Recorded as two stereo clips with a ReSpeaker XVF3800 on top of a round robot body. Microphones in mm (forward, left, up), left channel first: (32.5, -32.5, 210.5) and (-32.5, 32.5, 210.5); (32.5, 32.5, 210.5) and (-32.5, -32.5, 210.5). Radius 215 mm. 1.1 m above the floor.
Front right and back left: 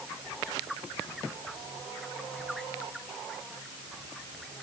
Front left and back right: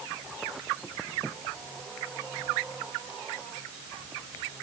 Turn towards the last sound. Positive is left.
No sound to turn to.